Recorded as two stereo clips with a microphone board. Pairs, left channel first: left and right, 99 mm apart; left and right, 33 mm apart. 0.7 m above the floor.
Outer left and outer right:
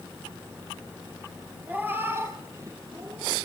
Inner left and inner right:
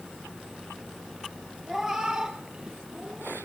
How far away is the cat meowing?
About 3 m.